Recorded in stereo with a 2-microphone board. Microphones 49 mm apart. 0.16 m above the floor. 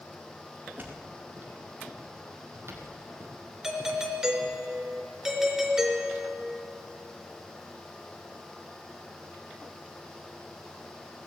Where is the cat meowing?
I don't hear a cat meowing.